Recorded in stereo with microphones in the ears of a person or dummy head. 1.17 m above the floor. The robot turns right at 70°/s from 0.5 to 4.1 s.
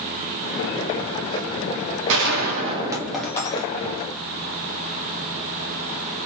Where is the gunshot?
75° right, 1.5 m; by 4.1 s 65° left, 1.5 m.